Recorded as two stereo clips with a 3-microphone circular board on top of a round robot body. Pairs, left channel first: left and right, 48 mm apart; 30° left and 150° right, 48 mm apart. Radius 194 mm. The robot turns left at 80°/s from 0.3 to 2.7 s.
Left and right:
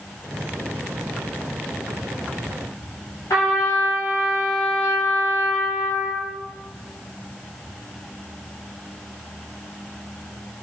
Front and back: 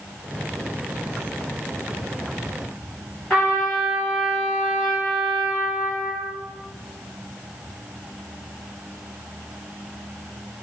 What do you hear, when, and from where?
3.3 s a trumpet: 100° left, 0.7 m